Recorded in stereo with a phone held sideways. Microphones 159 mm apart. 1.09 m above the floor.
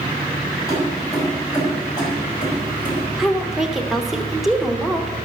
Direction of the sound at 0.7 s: 20° left (ahead or behind).